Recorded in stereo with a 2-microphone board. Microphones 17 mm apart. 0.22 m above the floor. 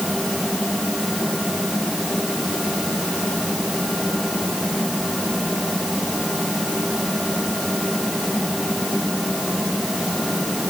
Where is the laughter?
No laughter in this recording.